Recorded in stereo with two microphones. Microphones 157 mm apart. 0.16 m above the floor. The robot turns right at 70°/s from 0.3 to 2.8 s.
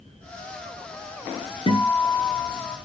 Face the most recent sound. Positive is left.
turn(degrees=125)